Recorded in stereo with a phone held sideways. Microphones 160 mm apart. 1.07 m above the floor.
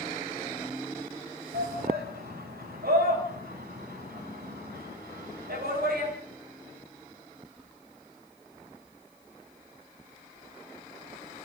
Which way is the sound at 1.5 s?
80° right.